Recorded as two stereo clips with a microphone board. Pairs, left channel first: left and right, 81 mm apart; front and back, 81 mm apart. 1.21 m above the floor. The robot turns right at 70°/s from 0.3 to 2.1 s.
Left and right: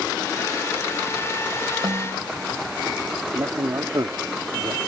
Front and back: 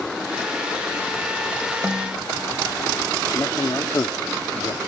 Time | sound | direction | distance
1.8 | a snare drum | 110° right | ?
3.3 | a man speaking | 50° right | ?